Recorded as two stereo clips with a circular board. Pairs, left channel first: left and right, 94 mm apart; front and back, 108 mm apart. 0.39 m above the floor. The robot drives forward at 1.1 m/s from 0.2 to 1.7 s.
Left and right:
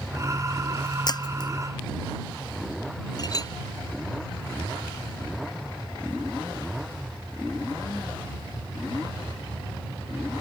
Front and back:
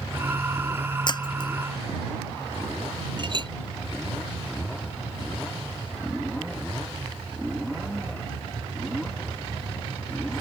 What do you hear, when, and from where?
1.1 s breaking glass: 45° left; by 1.5 s 50° left
3.2 s a clink: 135° left